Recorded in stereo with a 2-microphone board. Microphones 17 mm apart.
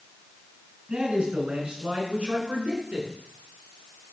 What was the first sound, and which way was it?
A man speaking, 70° right (ahead or behind).